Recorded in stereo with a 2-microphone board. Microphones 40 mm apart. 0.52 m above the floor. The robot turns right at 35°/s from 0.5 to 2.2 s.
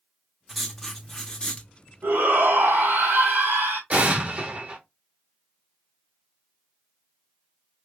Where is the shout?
65° right (ahead or behind), 3 m; by 3.8 s 60° right (ahead or behind), 3 m.